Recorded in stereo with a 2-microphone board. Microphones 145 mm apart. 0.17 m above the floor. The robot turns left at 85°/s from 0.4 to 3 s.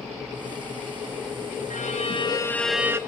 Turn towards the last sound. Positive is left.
turn(degrees=-25)